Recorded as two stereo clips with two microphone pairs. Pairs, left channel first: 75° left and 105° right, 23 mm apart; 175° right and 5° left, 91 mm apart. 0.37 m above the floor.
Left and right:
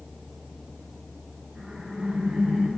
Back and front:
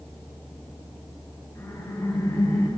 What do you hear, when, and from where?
1.6 s laughter: 115° right, 7 m; by 2.7 s 120° right, 7.5 m